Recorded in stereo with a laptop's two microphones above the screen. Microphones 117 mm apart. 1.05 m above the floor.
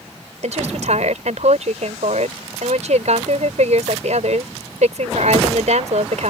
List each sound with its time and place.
0.4 s a woman speaking: 80° right